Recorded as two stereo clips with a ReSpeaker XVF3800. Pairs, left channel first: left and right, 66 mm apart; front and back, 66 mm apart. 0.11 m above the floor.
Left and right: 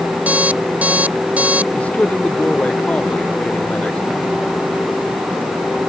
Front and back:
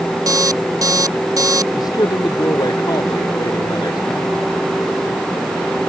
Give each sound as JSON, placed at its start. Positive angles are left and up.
{"t": 0.3, "sound": "an alarm clock", "azimuth_deg": -155}
{"t": 1.8, "sound": "a man speaking", "azimuth_deg": 20}